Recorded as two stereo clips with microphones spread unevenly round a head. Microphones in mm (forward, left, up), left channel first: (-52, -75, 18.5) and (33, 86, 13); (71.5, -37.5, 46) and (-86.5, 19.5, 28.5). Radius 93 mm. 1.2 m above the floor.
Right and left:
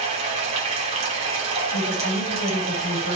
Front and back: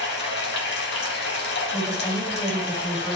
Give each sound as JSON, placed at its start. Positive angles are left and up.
{"t": 0.0, "sound": "running water", "azimuth_deg": 5, "distance_m": 1.4}
{"t": 1.7, "sound": "a woman speaking", "azimuth_deg": -100, "distance_m": 2.5}